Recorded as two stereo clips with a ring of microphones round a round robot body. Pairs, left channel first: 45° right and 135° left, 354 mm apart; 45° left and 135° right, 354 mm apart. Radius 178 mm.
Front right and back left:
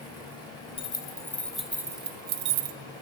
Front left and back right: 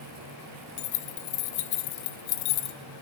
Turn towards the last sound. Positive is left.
turn(degrees=95)